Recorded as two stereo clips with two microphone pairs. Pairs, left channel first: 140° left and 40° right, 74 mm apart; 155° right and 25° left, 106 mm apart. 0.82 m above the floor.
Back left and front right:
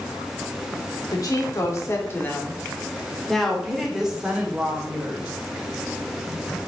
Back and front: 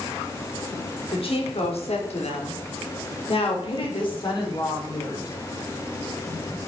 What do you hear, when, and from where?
1.1 s a woman speaking: 175° left, 1.9 m; by 5.3 s 105° right, 3 m